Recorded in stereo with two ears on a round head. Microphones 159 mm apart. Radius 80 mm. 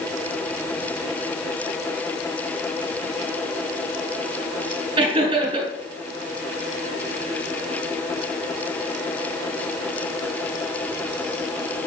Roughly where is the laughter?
Right.